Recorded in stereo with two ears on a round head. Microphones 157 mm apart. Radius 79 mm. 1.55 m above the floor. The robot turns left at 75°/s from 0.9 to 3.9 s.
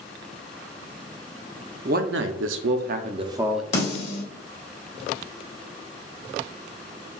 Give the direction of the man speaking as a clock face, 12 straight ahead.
2 o'clock.